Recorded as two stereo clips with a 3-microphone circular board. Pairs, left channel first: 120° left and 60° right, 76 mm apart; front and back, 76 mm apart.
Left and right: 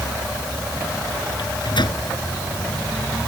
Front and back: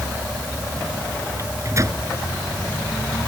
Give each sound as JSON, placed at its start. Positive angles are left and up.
{"t": 1.4, "sound": "a microwave", "azimuth_deg": 130}